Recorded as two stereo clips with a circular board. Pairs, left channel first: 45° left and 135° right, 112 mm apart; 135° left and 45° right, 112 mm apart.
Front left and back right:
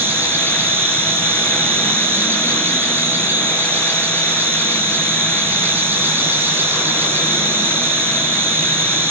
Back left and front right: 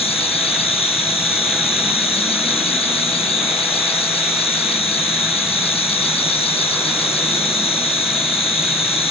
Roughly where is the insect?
Behind left.